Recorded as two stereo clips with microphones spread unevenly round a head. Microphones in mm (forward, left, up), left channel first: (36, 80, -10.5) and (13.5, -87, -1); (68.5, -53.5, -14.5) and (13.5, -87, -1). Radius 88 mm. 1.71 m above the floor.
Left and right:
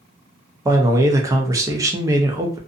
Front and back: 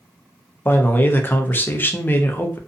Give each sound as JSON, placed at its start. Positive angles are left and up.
{"t": 0.7, "sound": "a man speaking", "azimuth_deg": -30, "distance_m": 0.7}